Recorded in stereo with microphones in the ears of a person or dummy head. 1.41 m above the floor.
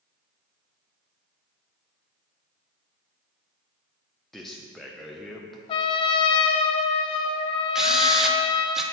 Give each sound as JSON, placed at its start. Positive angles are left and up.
{"t": 4.3, "sound": "a man speaking", "side_deg": 5, "distance_m": 0.5}
{"t": 5.7, "sound": "a trumpet", "side_deg": 35, "distance_m": 0.6}
{"t": 7.8, "sound": "a drill", "side_deg": 0, "distance_m": 0.6}